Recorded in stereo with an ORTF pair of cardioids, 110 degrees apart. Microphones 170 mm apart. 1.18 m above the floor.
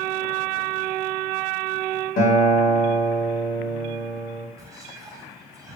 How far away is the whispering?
About 1.1 m.